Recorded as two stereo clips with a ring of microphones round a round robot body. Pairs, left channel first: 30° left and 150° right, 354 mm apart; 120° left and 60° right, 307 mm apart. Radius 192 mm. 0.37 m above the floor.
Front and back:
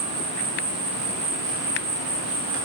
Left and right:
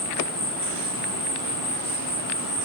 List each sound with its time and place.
0.0 s an insect: 175° right, 1.2 m